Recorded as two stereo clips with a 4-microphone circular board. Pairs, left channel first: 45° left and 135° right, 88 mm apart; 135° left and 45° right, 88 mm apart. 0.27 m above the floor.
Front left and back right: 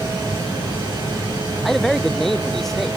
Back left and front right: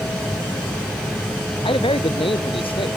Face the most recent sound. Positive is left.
turn(degrees=135)